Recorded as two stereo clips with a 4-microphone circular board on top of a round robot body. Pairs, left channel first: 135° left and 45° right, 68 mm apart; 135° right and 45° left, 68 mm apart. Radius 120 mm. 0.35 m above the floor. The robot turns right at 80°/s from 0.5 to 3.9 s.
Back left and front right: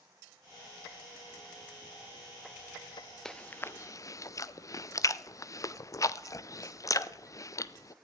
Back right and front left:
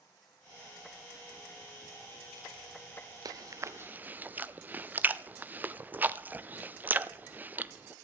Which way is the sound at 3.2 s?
55° left.